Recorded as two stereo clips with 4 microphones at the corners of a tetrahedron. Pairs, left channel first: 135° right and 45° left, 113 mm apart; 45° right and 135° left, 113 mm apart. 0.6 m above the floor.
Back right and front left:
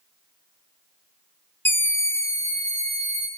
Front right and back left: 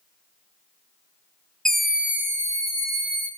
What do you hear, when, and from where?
1.6 s a scream: 120° right, 0.8 m; by 3.3 s 165° left, 1.3 m